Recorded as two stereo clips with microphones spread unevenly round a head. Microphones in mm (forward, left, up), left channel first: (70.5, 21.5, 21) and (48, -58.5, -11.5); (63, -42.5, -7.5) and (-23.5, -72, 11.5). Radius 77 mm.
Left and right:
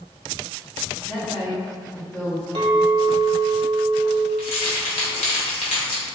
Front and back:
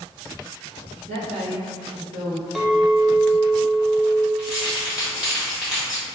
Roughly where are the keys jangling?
Left.